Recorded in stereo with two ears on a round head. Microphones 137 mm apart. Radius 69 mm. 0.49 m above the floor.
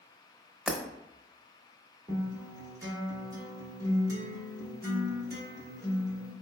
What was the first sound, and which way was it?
Breaking glass, 5° right (ahead or behind).